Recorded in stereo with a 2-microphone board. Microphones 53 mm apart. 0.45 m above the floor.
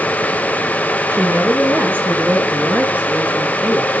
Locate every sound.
1.1 s a woman speaking: 45° right (ahead or behind), 4.5 m; by 3.9 s 25° right (ahead or behind), 6 m